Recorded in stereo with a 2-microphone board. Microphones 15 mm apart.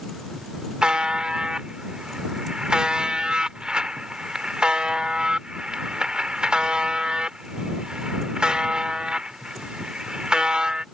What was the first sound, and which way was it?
A buzzer, 80° right.